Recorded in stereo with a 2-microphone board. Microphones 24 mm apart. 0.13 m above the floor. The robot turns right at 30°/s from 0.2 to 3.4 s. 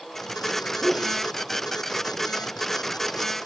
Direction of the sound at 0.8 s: Centre (ahead or behind).